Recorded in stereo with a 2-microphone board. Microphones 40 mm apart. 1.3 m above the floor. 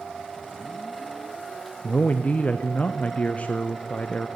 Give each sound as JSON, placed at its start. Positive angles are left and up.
{"t": 1.8, "sound": "a man speaking", "side_deg": 35, "distance_m": 0.5}